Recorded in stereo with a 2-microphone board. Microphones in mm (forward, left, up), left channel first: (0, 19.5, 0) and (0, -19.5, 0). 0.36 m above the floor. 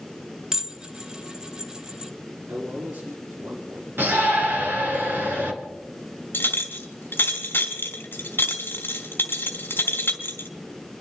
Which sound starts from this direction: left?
A clink, at 6.3 s.